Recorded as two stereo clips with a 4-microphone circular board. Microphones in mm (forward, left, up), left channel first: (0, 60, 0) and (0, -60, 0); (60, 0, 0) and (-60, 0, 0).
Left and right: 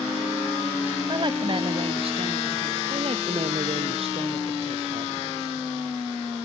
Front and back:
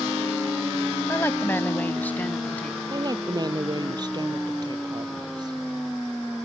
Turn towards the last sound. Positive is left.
turn(degrees=-125)